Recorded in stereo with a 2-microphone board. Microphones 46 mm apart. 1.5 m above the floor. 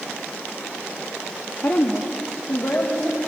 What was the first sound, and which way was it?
A woman speaking, 40° left (ahead or behind).